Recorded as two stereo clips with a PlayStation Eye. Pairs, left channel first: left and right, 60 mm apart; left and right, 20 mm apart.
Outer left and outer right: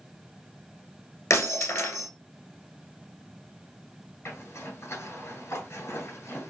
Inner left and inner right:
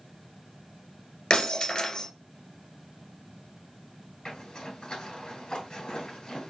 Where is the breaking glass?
60° left (ahead or behind), 1.6 m.